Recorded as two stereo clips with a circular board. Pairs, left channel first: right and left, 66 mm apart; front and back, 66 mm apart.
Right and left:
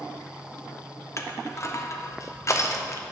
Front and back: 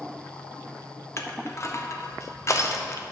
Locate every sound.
1.2 s crushing: 50° right, 1.0 m